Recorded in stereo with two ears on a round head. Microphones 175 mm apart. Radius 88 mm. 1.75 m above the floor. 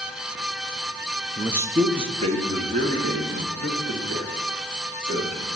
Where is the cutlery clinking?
I don't hear cutlery clinking.